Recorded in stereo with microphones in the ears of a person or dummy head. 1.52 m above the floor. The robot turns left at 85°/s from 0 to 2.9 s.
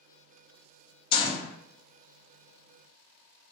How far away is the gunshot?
About 0.5 m.